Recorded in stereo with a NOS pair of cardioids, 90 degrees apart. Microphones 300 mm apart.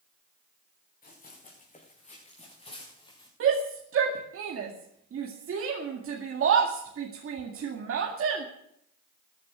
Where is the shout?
50° right, 2 m.